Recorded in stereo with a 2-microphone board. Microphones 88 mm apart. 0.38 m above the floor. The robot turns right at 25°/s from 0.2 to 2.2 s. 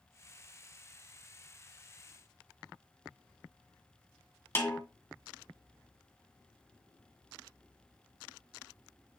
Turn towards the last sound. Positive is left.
turn(degrees=30)  # may be behind; listen again after turning